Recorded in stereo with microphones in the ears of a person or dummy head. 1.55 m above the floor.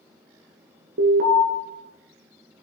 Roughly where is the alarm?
Right.